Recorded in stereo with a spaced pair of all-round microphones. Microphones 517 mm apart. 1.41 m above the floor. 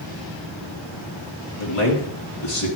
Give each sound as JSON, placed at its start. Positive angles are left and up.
{"t": 1.6, "sound": "a man speaking", "side_deg": 90, "distance_m": 2.5}